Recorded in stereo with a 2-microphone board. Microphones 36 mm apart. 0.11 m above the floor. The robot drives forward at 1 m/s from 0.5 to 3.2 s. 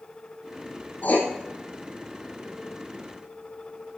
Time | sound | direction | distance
1.0 | writing | 45° left (ahead or behind) | 3 m